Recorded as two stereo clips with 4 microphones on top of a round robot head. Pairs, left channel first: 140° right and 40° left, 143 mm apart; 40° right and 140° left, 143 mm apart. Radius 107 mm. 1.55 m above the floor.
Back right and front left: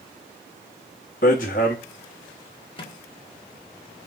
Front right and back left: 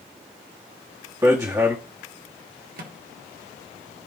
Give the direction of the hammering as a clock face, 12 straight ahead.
5 o'clock.